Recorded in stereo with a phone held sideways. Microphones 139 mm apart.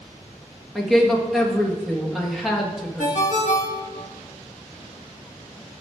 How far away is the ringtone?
About 1.3 m.